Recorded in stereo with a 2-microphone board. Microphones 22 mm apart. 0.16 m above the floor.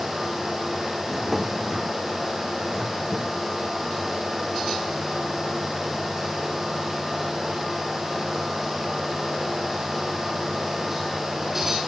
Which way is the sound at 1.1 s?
10° right (ahead or behind).